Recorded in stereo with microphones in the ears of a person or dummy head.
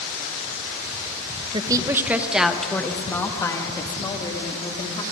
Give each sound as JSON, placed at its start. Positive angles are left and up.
{"t": 1.5, "sound": "a woman speaking", "side_deg": -25, "distance_m": 1.2}